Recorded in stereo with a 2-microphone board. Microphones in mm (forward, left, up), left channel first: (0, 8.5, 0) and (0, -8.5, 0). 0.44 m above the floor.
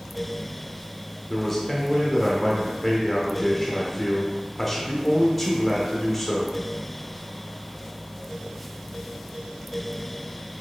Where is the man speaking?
10° left (ahead or behind), 0.9 m.